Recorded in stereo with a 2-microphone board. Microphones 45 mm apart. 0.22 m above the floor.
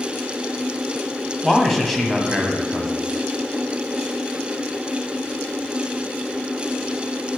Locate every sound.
1.4 s a man speaking: 5° left (ahead or behind), 1.2 m